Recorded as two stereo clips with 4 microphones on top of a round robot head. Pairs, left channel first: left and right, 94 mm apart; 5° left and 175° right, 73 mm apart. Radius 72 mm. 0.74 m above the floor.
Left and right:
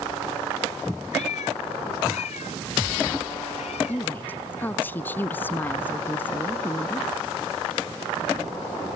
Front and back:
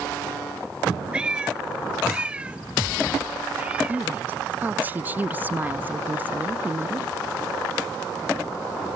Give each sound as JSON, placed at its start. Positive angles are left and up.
{"t": 1.1, "sound": "a cat meowing", "azimuth_deg": 110}
{"t": 3.9, "sound": "a woman speaking", "azimuth_deg": 145}